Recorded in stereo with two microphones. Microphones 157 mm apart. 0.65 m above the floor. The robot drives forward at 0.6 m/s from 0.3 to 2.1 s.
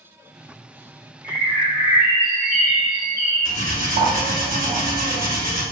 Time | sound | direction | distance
1.2 | a bird | 75° right (ahead or behind) | 1.5 m
3.5 | cutlery clinking | 60° right (ahead or behind) | 1.0 m